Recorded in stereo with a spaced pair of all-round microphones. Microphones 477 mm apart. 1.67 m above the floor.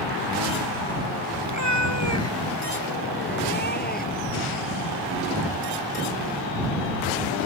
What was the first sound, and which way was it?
A cat meowing, 40° left (ahead or behind).